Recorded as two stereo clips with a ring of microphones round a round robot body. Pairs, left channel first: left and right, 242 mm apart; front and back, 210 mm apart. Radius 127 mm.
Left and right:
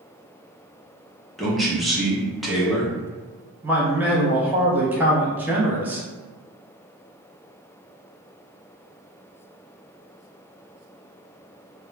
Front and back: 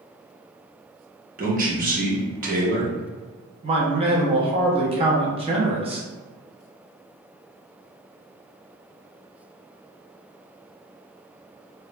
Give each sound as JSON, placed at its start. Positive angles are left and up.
{"t": 1.4, "sound": "a man speaking", "azimuth_deg": 180, "distance_m": 0.8}
{"t": 3.6, "sound": "a man speaking", "azimuth_deg": -165, "distance_m": 0.6}